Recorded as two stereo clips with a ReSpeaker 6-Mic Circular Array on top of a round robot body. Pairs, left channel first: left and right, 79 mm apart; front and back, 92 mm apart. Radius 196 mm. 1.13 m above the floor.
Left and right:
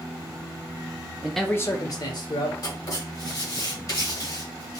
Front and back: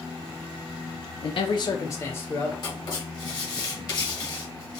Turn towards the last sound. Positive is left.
turn(degrees=50)